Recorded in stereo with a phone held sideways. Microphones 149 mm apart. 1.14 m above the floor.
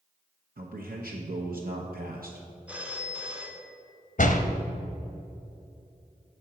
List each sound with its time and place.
0.6 s a man speaking: 75° right (ahead or behind), 0.9 m
2.7 s a phone ringing: 10° right (ahead or behind), 1.0 m
4.2 s a door slam: 60° left (ahead or behind), 0.7 m